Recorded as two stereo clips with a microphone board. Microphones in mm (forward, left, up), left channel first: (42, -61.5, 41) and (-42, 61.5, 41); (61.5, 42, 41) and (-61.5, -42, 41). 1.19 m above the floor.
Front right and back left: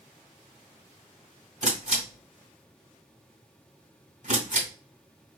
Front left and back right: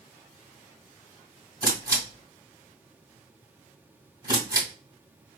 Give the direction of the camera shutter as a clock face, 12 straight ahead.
7 o'clock.